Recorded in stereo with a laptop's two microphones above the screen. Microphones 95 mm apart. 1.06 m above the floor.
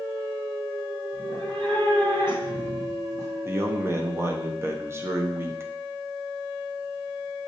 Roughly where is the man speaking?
Right.